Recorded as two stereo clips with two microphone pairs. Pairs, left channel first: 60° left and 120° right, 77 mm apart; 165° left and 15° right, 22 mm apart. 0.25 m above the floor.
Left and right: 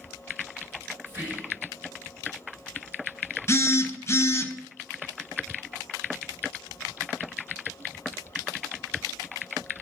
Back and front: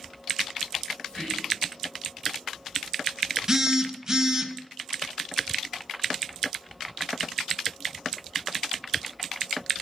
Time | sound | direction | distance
1.1 | whispering | straight behind | 2.0 m
3.5 | a phone buzzing | 35° left | 0.5 m